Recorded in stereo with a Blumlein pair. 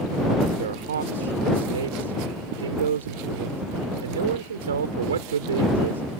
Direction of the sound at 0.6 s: 65° right.